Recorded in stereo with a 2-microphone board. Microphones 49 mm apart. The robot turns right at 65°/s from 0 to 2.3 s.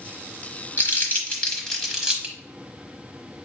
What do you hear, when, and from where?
0.8 s crumpling: 45° left (ahead or behind), 1.1 m; by 2.3 s 15° right (ahead or behind), 1.1 m